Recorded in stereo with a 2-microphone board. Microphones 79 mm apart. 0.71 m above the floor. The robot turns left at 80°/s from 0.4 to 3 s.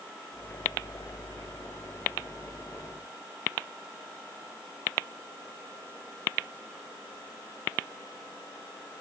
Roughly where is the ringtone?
I don't hear a ringtone.